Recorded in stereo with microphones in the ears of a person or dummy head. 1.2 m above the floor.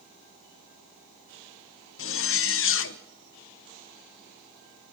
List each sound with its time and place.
2.0 s a zipper: 65° left (ahead or behind), 0.7 m